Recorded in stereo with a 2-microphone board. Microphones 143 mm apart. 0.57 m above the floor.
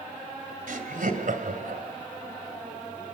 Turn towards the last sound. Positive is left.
turn(degrees=-75)  # may be behind; listen again after turning